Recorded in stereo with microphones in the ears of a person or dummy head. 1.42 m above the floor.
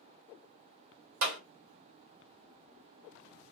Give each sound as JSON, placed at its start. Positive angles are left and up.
{"t": 1.2, "sound": "a clap", "side_deg": -70, "distance_m": 1.0}